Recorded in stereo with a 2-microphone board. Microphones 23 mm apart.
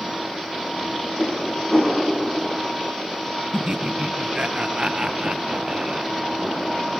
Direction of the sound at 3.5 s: 40° right (ahead or behind).